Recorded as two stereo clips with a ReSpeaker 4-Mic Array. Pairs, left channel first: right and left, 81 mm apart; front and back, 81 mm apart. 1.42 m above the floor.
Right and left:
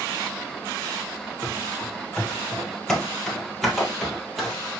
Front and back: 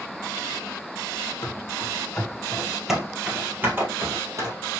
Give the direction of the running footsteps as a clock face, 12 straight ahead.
1 o'clock.